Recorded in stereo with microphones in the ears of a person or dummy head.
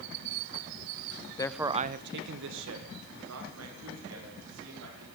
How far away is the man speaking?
About 0.6 m.